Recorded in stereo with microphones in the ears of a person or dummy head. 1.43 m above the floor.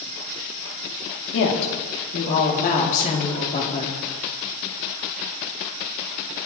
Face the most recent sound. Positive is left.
turn(degrees=35)  # may be behind; listen again after turning